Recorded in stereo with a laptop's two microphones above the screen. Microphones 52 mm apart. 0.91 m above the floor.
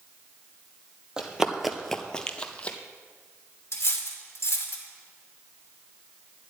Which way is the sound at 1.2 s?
15° right (ahead or behind).